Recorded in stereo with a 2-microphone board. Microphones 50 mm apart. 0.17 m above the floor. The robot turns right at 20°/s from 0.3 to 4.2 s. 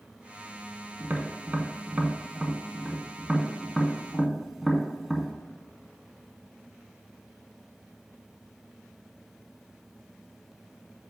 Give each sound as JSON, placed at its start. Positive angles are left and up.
{"t": 1.0, "sound": "tapping", "side_deg": -40, "distance_m": 0.6}